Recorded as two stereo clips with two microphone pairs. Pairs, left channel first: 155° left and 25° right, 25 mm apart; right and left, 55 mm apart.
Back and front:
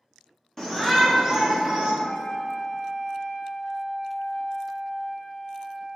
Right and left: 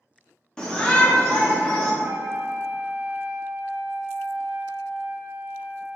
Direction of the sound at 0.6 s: 150° right.